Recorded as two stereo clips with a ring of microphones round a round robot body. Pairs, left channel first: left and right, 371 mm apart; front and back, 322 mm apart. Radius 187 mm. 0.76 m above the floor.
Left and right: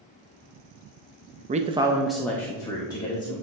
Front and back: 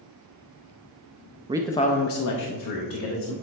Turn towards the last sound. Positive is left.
turn(degrees=10)